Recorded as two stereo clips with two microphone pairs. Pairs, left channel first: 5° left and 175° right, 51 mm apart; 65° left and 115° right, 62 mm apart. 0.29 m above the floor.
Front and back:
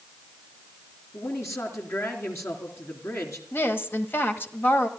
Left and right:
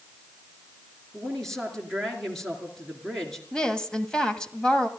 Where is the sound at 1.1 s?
15° right, 3.5 m.